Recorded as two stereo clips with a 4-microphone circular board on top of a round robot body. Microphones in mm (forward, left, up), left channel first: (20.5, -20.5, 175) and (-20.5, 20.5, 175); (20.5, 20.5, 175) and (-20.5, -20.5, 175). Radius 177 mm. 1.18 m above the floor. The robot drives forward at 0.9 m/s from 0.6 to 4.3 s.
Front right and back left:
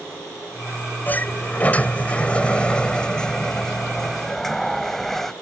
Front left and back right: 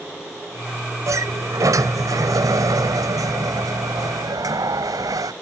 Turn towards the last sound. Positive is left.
turn(degrees=-130)